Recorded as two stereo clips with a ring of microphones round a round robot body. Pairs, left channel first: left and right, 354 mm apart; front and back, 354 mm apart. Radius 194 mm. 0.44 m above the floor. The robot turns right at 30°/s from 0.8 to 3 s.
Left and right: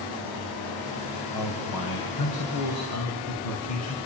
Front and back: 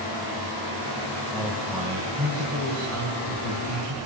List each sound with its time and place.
1.3 s a man speaking: 85° left, 3.5 m; by 4.0 s 135° left, 3.5 m